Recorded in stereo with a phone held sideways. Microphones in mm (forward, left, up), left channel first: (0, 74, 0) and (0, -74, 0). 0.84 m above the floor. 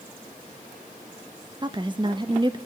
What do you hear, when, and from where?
1.6 s a woman speaking: 30° right (ahead or behind), 0.5 m